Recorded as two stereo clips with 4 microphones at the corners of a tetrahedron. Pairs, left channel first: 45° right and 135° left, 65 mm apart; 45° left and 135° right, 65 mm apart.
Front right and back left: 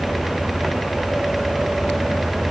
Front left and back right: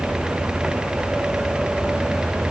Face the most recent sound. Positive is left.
No sound to turn to.